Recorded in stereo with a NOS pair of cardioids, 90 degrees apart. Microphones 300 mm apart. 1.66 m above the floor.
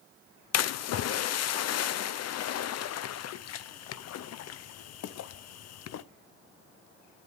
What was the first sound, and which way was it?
A splash, 65° left.